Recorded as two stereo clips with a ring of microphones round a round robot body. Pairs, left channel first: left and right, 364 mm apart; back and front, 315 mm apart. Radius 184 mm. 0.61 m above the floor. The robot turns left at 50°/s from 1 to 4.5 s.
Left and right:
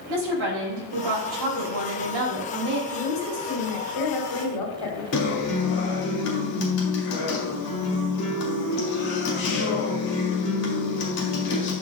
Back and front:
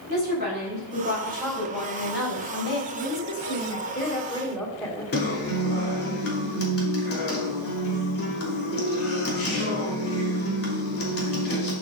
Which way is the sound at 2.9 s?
175° left.